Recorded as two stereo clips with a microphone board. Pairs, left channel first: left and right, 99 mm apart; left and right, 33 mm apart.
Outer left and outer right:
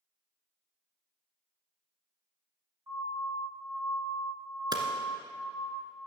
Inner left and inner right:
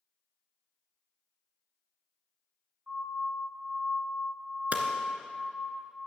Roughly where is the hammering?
Right.